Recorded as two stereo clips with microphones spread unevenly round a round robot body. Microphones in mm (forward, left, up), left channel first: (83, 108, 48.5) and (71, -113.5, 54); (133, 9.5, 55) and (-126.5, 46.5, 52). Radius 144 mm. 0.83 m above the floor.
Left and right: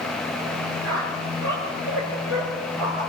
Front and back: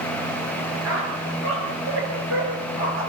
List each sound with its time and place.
0.8 s a squeak: 140° right, 7.5 m